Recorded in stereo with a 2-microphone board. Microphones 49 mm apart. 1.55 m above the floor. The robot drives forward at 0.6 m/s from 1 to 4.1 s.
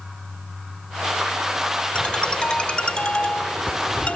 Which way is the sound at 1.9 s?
20° left (ahead or behind).